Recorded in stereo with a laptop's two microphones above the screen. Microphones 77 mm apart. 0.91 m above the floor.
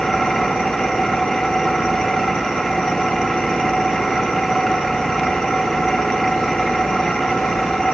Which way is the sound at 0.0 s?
5° left (ahead or behind).